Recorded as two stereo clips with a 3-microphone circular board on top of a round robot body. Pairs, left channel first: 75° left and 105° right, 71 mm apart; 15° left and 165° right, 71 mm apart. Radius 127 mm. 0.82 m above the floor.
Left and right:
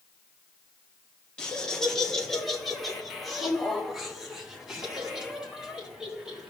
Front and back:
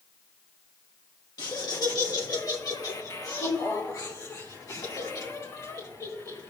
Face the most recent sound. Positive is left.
turn(degrees=-25)